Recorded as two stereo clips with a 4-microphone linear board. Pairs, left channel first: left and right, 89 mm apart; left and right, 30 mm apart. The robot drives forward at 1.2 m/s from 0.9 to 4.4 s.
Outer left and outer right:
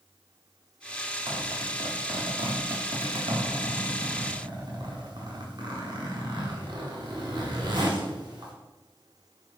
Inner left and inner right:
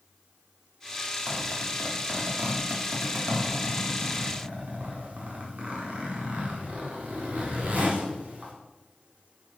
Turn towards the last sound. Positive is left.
turn(degrees=-55)  # may be behind; listen again after turning